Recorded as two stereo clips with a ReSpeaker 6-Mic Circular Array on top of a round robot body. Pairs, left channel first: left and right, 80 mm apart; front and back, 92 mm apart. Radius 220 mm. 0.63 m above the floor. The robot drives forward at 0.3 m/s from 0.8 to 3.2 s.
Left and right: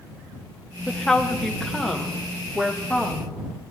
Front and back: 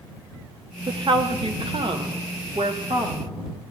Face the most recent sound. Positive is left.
turn(degrees=175)